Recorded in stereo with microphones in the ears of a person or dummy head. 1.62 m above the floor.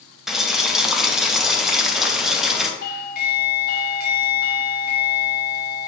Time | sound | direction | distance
0.3 | boiling | 5° left (ahead or behind) | 0.5 m
2.8 | a doorbell | 45° left (ahead or behind) | 0.6 m